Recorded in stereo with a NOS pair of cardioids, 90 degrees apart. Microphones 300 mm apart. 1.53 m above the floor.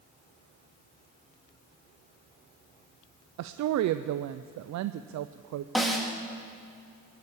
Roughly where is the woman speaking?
Ahead right.